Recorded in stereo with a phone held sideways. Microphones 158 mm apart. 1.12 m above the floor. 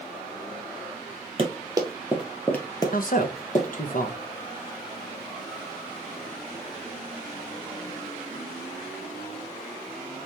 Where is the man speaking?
60° left (ahead or behind), 0.9 m.